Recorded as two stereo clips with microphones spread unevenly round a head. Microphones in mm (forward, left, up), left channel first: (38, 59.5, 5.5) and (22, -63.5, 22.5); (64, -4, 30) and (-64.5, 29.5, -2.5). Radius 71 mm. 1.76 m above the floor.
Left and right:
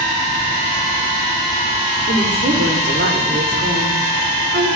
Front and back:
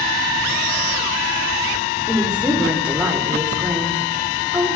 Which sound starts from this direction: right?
A woman speaking, at 2.1 s.